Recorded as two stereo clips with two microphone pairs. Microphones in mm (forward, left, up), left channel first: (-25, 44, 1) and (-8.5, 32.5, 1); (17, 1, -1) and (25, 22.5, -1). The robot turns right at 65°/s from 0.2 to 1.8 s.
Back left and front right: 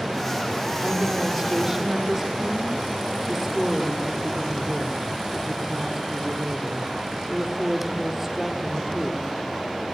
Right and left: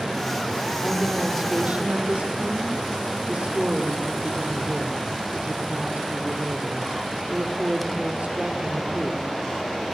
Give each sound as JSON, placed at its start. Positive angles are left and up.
{"t": 0.8, "sound": "a woman speaking", "azimuth_deg": -15, "distance_m": 6.0}